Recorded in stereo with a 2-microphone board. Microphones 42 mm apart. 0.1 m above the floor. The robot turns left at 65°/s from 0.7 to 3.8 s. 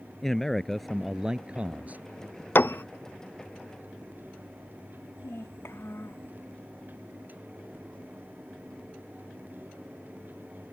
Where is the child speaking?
65° left (ahead or behind).